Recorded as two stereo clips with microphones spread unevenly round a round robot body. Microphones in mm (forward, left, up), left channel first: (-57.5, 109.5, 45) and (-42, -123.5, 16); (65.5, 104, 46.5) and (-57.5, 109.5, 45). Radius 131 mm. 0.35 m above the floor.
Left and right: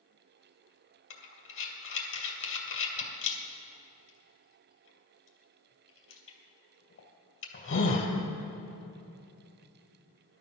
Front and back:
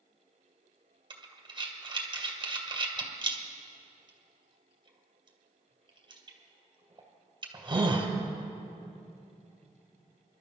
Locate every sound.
1.1 s breathing: 125° left, 2.5 m